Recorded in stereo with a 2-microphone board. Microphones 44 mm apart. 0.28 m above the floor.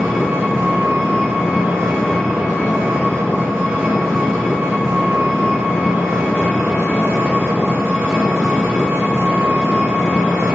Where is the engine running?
65° right (ahead or behind), 1.0 m.